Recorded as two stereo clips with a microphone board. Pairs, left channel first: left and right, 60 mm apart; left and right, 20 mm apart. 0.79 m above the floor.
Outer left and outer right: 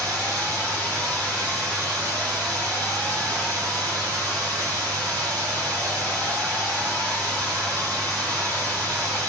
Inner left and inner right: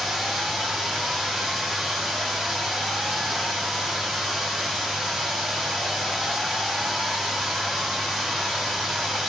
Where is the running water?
20° left (ahead or behind), 2.5 m.